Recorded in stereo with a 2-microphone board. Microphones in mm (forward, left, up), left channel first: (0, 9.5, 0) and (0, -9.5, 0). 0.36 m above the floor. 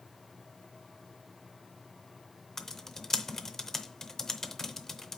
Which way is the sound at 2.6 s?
25° left (ahead or behind).